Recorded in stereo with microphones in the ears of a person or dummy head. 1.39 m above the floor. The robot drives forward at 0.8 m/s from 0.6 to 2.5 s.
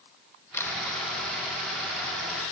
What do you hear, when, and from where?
0.5 s a camera shutter: 10° left (ahead or behind)